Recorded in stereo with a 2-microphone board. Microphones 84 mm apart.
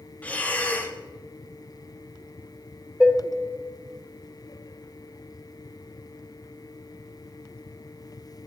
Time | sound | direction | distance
0.2 | breathing | 15° left (ahead or behind) | 0.6 m
3.0 | dishes clattering | 15° right (ahead or behind) | 0.6 m